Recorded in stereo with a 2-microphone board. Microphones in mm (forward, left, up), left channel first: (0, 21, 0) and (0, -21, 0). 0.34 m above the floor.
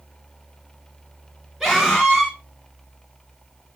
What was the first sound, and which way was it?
A scream, 5° right (ahead or behind).